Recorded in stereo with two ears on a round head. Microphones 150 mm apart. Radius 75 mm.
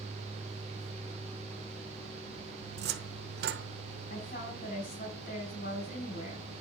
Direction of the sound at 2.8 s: 70° right (ahead or behind).